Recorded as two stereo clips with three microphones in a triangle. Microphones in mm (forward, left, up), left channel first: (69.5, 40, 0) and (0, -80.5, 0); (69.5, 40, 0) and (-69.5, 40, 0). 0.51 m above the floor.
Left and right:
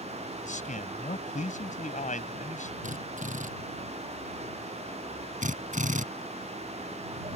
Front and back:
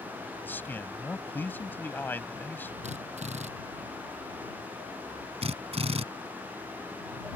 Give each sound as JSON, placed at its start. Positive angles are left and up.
{"t": 0.4, "sound": "a man speaking", "azimuth_deg": 75}
{"t": 2.8, "sound": "a drill", "azimuth_deg": -145}
{"t": 5.4, "sound": "a drill", "azimuth_deg": -140}